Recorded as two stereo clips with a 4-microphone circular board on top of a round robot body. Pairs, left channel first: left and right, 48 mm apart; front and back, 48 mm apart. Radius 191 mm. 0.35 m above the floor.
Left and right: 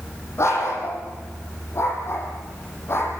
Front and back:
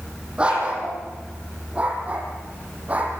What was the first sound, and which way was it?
A dog barking, 110° left.